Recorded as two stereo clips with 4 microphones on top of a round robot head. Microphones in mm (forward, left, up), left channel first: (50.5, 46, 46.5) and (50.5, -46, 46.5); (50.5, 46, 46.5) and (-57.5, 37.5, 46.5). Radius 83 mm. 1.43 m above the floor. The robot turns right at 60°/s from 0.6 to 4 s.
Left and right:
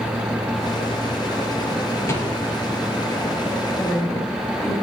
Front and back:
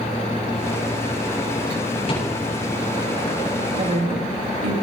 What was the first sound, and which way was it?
A rattle, 35° left.